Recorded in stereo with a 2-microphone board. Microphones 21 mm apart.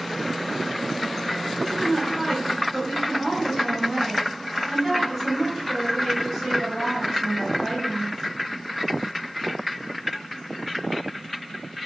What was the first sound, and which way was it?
A woman speaking, 5° left (ahead or behind).